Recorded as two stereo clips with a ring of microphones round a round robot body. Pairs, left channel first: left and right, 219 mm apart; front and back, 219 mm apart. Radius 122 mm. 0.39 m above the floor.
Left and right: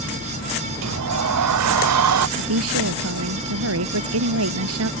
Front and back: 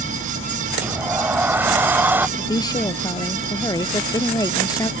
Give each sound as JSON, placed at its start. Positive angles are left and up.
{"t": 0.8, "sound": "a sliding door", "azimuth_deg": -100}
{"t": 2.4, "sound": "a woman speaking", "azimuth_deg": -75}